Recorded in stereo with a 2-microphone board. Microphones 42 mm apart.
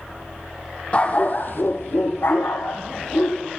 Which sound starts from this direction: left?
A dog barking, at 0.9 s.